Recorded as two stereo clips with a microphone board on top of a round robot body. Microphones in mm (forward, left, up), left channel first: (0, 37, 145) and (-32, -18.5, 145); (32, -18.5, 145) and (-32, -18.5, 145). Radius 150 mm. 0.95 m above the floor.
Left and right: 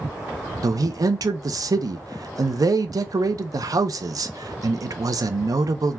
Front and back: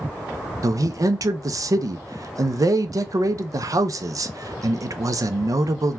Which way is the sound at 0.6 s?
150° right.